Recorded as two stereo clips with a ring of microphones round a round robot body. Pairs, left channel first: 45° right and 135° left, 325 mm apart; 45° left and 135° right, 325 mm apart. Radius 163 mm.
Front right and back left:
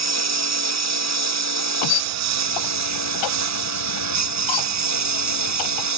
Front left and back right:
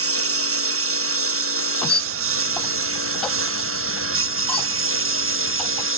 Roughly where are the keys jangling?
No keys jangling in this recording.